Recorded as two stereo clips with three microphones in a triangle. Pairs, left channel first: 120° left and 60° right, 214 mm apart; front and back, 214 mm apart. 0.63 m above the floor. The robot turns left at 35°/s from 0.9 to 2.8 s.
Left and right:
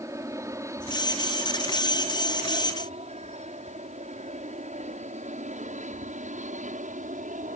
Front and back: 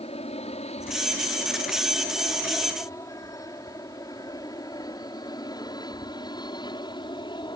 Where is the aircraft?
Straight ahead; by 7.6 s 55° right.